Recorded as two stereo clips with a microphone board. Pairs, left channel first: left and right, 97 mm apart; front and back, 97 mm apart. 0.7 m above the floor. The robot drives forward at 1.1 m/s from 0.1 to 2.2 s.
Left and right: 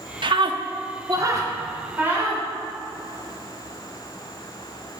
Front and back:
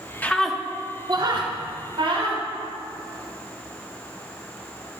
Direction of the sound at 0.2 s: 70° right.